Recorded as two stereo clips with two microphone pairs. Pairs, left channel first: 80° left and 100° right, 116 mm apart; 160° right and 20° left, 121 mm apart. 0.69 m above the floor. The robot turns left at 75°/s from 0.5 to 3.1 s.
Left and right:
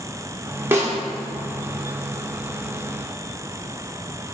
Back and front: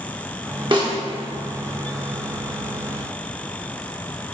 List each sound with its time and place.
0.7 s a snare drum: 30° right, 0.8 m; by 0.9 s 45° right, 0.8 m